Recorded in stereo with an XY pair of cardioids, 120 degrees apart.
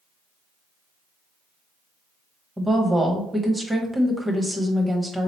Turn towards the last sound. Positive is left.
turn(degrees=-10)